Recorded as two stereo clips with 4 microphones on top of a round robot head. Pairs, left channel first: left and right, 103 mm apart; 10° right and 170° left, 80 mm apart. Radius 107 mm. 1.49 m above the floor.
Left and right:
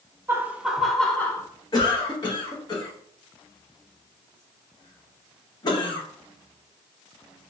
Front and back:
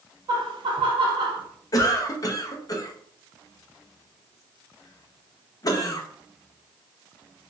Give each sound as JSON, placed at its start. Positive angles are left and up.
{"t": 0.3, "sound": "laughter", "azimuth_deg": -155, "distance_m": 0.8}
{"t": 1.7, "sound": "a cough", "azimuth_deg": 35, "distance_m": 0.7}